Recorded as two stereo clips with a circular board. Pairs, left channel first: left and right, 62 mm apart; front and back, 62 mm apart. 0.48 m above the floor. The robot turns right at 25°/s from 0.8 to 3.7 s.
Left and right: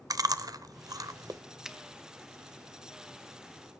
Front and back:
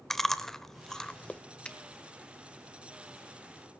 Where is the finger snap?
25° right, 0.9 m.